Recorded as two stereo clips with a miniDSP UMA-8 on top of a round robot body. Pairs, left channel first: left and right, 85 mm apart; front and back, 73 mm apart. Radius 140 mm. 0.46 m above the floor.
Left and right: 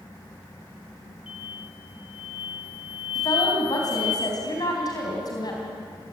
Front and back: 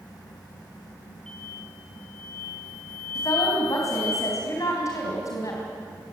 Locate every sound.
1.3 s an explosion: 80° left, 6 m
3.1 s a woman speaking: 45° left, 4 m